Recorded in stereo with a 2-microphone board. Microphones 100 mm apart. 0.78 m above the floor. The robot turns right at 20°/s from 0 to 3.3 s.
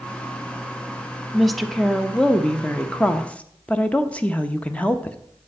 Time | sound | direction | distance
1.3 | a woman speaking | centre (ahead or behind) | 0.6 m